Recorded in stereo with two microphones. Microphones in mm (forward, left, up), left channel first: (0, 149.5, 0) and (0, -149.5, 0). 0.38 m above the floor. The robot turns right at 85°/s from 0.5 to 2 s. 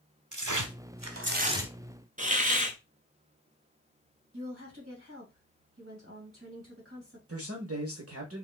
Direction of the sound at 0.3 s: 105° right.